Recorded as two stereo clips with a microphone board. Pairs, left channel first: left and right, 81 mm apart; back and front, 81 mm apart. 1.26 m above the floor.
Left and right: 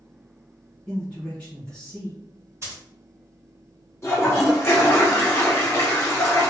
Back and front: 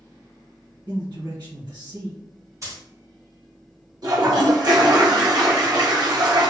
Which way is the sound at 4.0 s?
35° left.